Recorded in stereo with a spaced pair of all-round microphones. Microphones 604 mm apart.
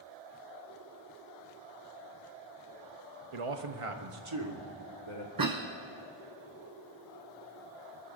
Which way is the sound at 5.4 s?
35° right (ahead or behind).